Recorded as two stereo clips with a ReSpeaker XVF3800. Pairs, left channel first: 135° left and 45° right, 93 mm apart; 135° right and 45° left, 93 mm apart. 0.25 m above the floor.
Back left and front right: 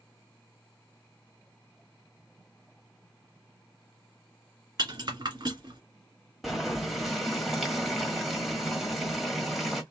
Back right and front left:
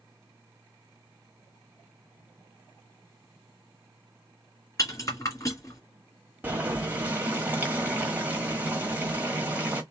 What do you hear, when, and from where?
4.8 s a rattle: 80° right, 2 m
6.4 s boiling: 35° left, 1.4 m